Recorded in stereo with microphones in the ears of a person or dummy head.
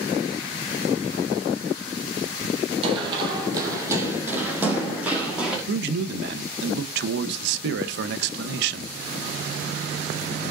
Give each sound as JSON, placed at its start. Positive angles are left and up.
{"t": 2.8, "sound": "running footsteps", "side_deg": -35, "distance_m": 3.0}
{"t": 5.7, "sound": "a man speaking", "side_deg": -70, "distance_m": 1.1}